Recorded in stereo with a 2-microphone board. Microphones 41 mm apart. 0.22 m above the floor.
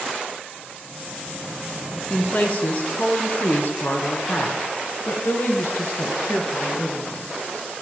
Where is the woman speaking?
35° left (ahead or behind), 3 m; by 7.4 s 65° left (ahead or behind), 5 m.